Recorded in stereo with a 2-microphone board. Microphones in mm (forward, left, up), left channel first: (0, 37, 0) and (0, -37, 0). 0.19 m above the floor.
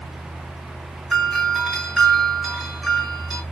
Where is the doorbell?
Centre (ahead or behind), 3 m.